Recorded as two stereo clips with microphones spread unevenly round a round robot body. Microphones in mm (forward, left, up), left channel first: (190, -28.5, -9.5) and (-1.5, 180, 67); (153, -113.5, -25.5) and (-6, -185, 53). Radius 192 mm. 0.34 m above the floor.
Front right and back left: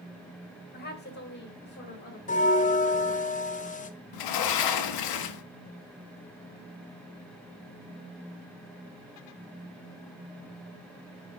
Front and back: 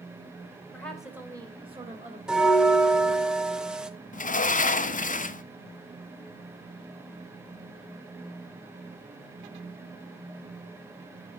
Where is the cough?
I don't hear a cough.